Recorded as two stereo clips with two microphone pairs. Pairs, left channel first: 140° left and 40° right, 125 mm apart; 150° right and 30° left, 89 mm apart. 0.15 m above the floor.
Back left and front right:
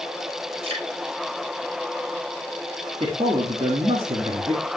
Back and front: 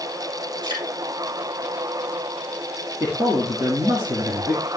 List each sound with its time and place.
0.6 s dripping: straight ahead, 4.5 m
3.0 s a man speaking: 15° right, 1.9 m